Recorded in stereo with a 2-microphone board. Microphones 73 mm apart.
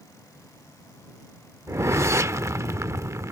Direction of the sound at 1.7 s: 40° right (ahead or behind).